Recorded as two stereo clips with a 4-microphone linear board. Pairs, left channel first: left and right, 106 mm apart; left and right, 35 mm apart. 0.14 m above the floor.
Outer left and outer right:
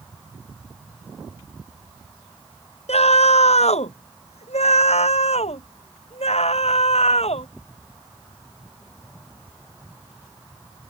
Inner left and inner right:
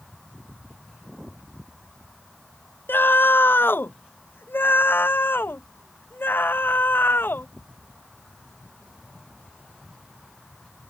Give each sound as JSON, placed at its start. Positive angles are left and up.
{"t": 2.9, "sound": "a scream", "side_deg": 75}